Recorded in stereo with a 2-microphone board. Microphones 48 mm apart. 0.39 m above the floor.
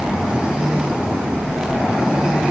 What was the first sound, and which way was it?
Only background noise.